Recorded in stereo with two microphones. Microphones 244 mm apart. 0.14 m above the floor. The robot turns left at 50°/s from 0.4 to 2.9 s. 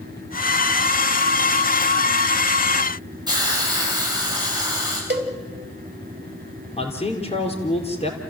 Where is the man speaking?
25° left (ahead or behind), 3.5 m.